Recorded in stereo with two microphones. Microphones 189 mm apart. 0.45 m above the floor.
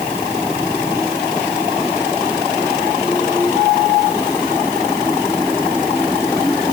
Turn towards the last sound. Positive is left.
No sound to turn to.